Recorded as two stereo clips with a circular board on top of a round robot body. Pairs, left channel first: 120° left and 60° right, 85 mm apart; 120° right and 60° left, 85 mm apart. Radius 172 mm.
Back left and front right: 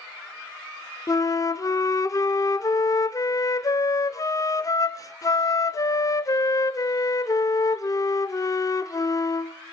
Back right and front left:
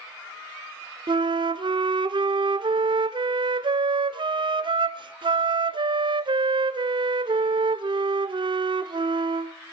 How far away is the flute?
About 0.5 m.